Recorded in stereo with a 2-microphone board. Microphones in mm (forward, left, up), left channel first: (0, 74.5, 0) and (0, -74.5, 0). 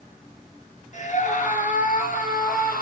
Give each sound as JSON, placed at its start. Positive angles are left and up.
{"t": 0.9, "sound": "a scream", "side_deg": 55, "distance_m": 3.5}